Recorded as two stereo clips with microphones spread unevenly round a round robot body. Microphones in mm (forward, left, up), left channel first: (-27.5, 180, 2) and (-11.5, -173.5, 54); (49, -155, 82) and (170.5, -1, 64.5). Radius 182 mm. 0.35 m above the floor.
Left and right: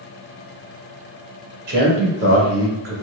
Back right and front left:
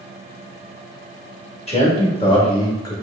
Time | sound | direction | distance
1.7 | a man speaking | 80° right | 1.8 m